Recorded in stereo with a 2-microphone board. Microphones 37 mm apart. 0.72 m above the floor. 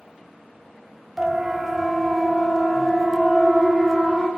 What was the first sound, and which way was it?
A siren, 10° right (ahead or behind).